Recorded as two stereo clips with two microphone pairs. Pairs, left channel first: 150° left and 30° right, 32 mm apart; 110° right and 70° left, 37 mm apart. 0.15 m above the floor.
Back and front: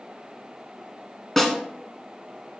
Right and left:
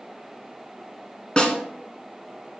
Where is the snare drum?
140° right, 1.3 m.